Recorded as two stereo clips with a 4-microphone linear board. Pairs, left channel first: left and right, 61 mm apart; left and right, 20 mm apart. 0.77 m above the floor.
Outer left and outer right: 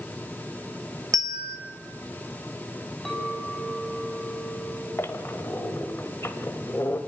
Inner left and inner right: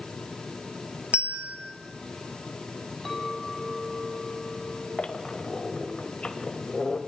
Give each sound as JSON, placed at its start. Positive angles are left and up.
{"t": 1.1, "sound": "a bell", "side_deg": -70, "distance_m": 1.4}
{"t": 3.0, "sound": "a clink", "side_deg": 5, "distance_m": 4.0}
{"t": 5.0, "sound": "a squeak", "side_deg": 45, "distance_m": 1.4}